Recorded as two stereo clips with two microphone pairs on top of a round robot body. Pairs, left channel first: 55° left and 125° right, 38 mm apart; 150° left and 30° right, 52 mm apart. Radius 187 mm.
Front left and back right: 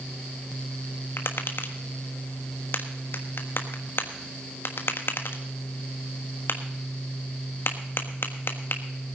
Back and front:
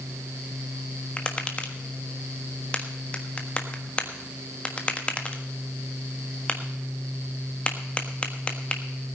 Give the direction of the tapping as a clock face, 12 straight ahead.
9 o'clock.